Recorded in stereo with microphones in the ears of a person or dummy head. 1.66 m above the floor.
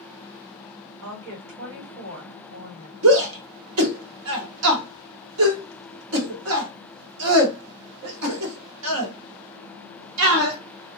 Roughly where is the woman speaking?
Right.